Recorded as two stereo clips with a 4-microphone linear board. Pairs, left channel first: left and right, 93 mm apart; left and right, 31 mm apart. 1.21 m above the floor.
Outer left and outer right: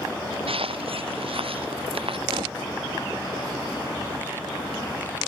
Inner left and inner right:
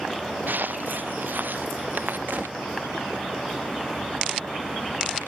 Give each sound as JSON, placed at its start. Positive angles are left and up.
{"t": 0.5, "sound": "footsteps", "side_deg": -85}
{"t": 2.3, "sound": "a gunshot", "side_deg": -80}